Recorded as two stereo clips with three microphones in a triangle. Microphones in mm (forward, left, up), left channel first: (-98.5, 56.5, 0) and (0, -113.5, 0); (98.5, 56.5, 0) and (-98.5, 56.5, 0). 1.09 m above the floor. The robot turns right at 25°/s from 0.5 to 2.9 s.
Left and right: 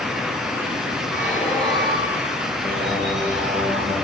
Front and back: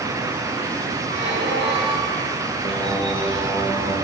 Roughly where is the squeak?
Behind.